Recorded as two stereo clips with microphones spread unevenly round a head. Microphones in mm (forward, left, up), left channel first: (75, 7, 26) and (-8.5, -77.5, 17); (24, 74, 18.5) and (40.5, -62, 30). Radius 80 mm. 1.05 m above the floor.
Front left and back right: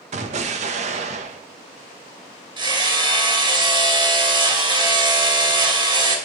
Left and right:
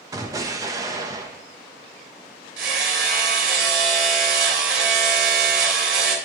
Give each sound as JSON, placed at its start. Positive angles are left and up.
{"t": 0.1, "sound": "an explosion", "azimuth_deg": -155, "distance_m": 1.1}
{"t": 2.6, "sound": "hammering", "azimuth_deg": -85, "distance_m": 3.0}